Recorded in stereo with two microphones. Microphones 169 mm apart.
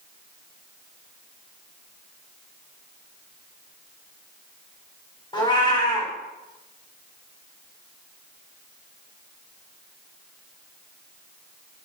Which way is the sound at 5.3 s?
25° left (ahead or behind).